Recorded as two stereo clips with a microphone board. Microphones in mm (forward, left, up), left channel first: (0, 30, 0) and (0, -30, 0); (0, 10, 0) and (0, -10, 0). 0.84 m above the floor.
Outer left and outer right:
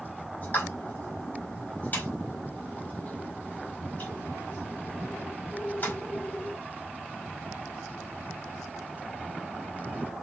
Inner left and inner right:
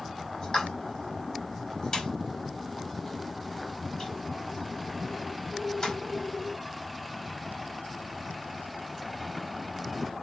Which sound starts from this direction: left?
A pop, at 0.4 s.